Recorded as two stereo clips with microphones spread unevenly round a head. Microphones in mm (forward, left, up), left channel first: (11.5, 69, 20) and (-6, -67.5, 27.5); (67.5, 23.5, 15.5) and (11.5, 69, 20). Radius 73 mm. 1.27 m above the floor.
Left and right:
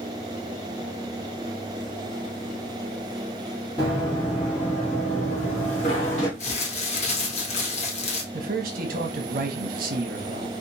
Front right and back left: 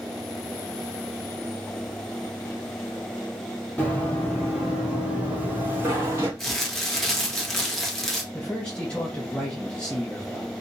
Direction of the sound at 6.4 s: 45° left.